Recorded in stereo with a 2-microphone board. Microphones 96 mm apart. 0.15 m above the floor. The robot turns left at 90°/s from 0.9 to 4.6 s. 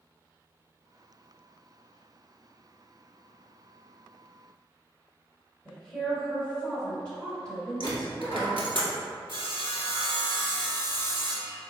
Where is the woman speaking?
10° left (ahead or behind), 1.9 m.